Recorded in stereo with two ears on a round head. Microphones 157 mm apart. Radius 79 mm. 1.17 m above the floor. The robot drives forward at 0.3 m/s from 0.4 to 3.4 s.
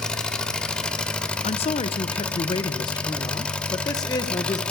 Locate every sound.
0.0 s an engine running: 5° left (ahead or behind), 0.9 m
1.4 s a man speaking: 35° left (ahead or behind), 0.7 m; by 4.6 s 20° left (ahead or behind), 1.1 m